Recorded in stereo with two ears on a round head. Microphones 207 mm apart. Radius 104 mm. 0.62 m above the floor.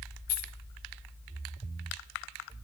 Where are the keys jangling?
40° left (ahead or behind), 3 m.